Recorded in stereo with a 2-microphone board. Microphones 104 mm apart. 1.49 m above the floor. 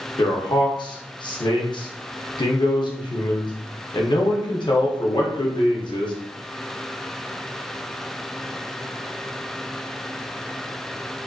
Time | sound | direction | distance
0.2 | a man speaking | 45° left (ahead or behind) | 0.7 m